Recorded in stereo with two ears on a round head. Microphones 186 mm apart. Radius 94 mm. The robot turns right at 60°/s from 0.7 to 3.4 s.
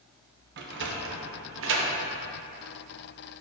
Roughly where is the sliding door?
Right.